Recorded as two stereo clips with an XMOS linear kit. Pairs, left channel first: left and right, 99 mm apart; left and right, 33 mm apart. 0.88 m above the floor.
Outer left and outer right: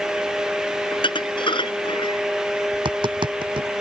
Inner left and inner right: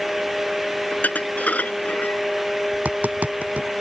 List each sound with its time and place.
0.9 s dishes clattering: 60° left (ahead or behind)
2.7 s tapping: 60° right (ahead or behind)